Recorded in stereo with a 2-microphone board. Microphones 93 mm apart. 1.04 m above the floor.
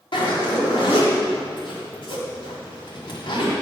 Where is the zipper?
60° left (ahead or behind), 1.8 m.